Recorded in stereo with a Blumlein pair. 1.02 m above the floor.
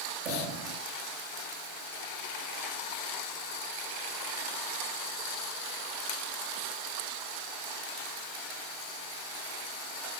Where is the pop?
45° right, 3 m.